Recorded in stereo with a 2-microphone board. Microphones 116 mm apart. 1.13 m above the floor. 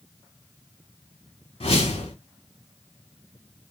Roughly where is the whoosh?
Left.